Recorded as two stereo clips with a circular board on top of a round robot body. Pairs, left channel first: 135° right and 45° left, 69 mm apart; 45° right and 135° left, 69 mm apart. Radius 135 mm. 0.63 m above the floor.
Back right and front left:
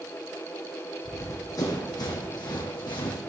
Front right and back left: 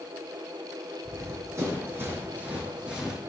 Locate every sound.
1.1 s running footsteps: 175° left, 2.5 m; by 3.2 s 145° right, 2.5 m